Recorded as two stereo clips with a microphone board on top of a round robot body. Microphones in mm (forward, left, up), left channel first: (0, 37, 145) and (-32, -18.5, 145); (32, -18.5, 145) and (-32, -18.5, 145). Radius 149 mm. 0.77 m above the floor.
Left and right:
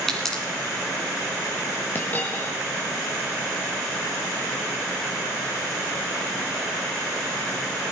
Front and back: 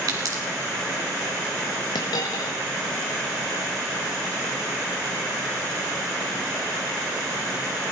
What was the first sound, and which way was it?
A pop, 145° left.